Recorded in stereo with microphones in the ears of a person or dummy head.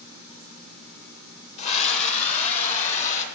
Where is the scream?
35° left (ahead or behind), 1.3 m; by 3.2 s 40° left (ahead or behind), 3 m.